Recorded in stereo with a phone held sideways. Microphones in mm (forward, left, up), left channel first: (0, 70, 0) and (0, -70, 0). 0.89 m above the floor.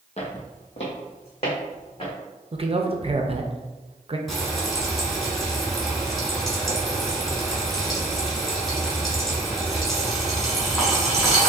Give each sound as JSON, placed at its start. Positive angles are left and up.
{"t": 0.2, "sound": "footsteps", "side_deg": 50, "distance_m": 1.4}
{"t": 2.5, "sound": "a man speaking", "side_deg": -45, "distance_m": 0.6}
{"t": 4.3, "sound": "frying", "side_deg": 0, "distance_m": 1.5}